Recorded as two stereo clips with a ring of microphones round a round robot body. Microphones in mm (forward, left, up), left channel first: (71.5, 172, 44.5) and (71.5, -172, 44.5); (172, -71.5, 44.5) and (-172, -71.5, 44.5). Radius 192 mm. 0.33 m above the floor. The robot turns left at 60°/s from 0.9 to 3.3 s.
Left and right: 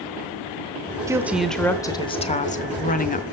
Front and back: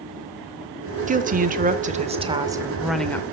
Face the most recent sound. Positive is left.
turn(degrees=70)